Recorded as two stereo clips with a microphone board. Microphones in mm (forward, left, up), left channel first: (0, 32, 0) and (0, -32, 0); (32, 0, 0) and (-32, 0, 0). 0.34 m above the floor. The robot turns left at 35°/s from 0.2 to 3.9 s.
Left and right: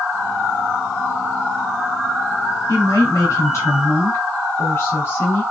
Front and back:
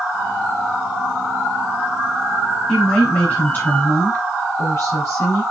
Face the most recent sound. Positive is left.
turn(degrees=45)